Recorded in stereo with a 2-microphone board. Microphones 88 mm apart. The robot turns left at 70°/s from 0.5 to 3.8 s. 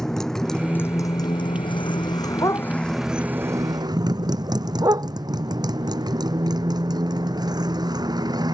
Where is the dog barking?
50° left (ahead or behind); by 5.1 s 45° right (ahead or behind).